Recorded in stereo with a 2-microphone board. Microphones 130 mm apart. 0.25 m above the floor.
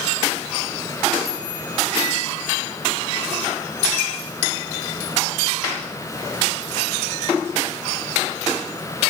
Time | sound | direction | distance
1.2 | a chime | 25° left (ahead or behind) | 6 m